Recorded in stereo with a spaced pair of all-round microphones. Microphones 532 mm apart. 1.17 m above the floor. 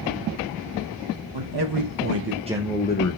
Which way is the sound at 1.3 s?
50° right (ahead or behind).